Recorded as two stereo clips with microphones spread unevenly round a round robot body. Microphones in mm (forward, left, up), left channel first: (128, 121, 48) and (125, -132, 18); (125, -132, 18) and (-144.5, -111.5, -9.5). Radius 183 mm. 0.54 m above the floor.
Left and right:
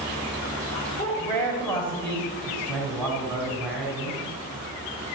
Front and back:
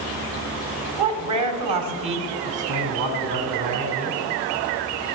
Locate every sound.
1.0 s a man speaking: 175° left, 2.5 m; by 4.2 s straight behind, 4 m